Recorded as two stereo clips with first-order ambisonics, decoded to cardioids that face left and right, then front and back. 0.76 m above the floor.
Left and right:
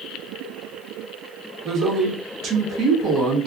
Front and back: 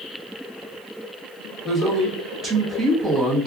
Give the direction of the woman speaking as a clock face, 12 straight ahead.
4 o'clock.